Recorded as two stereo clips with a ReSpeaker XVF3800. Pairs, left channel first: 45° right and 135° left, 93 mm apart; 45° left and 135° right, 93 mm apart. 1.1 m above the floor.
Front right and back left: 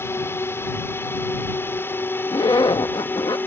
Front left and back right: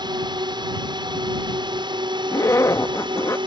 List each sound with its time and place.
0.0 s a drone: 105° right; by 3.5 s 110° right
2.3 s a zipper: 10° right